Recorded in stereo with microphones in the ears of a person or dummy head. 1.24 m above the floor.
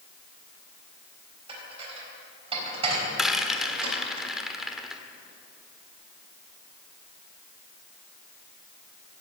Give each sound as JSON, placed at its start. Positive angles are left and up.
{"t": 1.5, "sound": "dishes clattering", "side_deg": -35, "distance_m": 4.0}
{"t": 3.2, "sound": "a rattle", "side_deg": -5, "distance_m": 1.4}